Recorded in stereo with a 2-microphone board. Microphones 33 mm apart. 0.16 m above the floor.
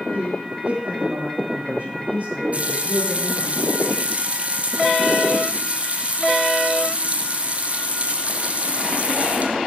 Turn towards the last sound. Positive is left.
turn(degrees=-45)  # may be behind; listen again after turning